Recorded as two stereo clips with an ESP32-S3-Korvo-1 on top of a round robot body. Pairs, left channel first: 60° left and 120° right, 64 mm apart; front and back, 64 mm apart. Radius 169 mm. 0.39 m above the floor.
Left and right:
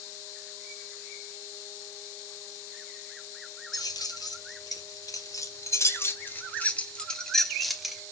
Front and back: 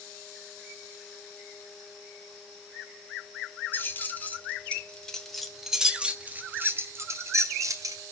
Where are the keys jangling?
55° left, 2 m; by 8.0 s 155° left, 2 m.